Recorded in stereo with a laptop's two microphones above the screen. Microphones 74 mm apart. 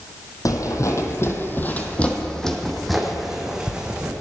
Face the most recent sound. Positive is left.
turn(degrees=-15)  # may be behind; listen again after turning